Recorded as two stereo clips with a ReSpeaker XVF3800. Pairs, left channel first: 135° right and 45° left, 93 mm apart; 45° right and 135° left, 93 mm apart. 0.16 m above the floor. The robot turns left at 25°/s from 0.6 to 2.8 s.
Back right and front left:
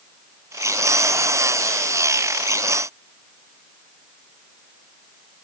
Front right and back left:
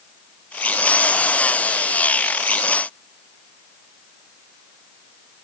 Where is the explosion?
No explosion in this recording.